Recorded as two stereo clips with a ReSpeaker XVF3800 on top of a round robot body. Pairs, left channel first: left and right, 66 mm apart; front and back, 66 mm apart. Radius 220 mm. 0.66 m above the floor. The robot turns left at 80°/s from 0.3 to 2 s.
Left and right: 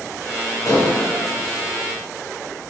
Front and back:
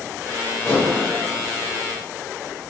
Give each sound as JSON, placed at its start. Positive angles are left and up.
{"t": 0.7, "sound": "dishes clattering", "azimuth_deg": 65, "distance_m": 2.5}